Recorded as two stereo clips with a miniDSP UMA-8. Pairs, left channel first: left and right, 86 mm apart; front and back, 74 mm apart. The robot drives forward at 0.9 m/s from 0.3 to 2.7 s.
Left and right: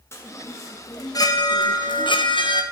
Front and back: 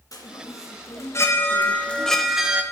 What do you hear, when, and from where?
0.1 s a chime: 35° left, 2 m; by 2.6 s 105° left, 1.3 m